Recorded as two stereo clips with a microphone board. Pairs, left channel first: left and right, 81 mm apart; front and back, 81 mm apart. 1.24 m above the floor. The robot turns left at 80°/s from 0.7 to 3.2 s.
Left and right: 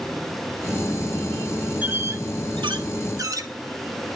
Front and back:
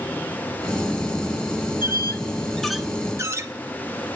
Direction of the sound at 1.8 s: 20° right.